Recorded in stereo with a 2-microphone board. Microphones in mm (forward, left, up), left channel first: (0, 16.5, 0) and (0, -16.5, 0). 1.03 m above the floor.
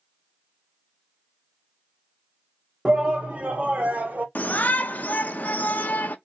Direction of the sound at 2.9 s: 30° right (ahead or behind).